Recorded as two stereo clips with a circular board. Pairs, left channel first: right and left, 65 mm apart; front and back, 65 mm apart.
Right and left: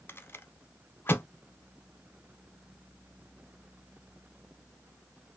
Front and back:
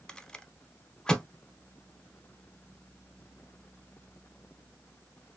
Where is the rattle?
70° right, 0.7 m.